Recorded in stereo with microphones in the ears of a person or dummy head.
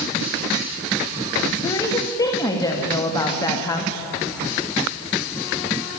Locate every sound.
1.6 s a woman speaking: 20° left (ahead or behind), 1.8 m